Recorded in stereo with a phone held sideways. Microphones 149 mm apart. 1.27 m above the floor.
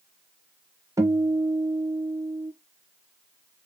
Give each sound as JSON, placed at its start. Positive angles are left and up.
{"t": 1.0, "sound": "a guitar", "side_deg": -20, "distance_m": 1.1}